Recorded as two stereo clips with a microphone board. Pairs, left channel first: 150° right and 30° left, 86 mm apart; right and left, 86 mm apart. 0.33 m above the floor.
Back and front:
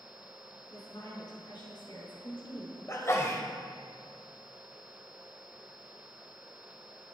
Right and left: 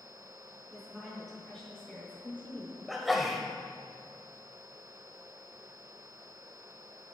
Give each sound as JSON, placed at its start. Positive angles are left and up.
{"t": 0.7, "sound": "a woman speaking", "azimuth_deg": 175, "distance_m": 3.5}
{"t": 2.9, "sound": "a sneeze", "azimuth_deg": 175, "distance_m": 1.4}